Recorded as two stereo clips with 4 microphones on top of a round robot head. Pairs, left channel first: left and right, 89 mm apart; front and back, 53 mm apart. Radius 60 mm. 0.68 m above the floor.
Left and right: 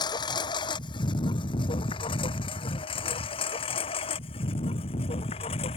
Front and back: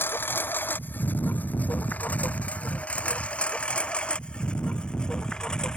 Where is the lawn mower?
50° left; by 5.8 s 75° left.